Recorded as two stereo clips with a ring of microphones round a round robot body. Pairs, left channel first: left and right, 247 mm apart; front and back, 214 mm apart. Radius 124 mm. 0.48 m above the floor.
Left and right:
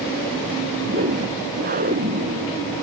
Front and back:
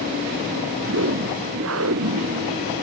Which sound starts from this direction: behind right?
A whoosh, at 0.8 s.